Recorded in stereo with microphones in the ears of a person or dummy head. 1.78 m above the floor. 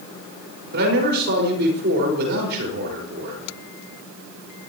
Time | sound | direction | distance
0.7 | a man speaking | 55° right (ahead or behind) | 5.5 m